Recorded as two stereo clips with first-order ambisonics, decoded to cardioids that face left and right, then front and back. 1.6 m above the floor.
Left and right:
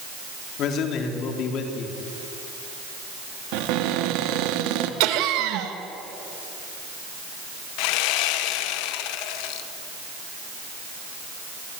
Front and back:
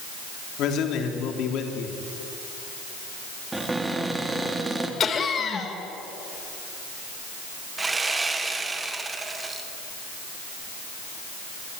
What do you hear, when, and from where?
0.6 s a man speaking: 45° left, 3.5 m
3.5 s a cupboard door: 100° right, 2 m
5.0 s laughter: 65° right, 2.5 m
7.8 s sawing: 100° left, 1.5 m